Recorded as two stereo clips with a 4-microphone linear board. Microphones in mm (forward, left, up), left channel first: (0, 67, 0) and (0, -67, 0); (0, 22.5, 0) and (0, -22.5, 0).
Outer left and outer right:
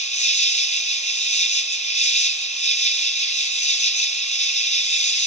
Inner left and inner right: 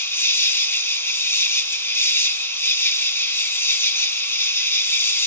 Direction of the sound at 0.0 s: 60° left (ahead or behind).